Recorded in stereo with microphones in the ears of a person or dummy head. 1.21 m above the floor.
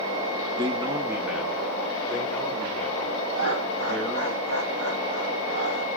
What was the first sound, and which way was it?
A man speaking, 20° right (ahead or behind).